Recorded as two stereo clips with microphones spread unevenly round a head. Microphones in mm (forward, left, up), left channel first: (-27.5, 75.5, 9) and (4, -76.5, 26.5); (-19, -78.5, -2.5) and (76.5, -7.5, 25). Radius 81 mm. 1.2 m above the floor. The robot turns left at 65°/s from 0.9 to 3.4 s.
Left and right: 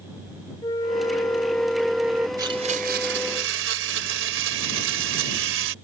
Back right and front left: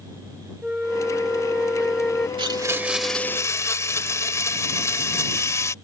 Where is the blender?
10° right; by 5.8 s 75° right.